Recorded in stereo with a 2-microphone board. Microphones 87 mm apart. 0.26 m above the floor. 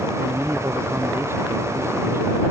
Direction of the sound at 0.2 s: 30° right (ahead or behind).